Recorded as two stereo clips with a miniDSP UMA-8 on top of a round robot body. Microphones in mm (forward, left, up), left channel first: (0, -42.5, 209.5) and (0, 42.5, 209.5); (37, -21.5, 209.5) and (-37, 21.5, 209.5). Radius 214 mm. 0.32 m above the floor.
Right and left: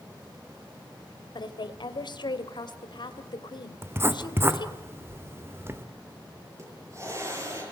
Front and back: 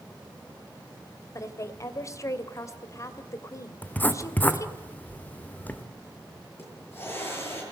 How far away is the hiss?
About 8.5 m.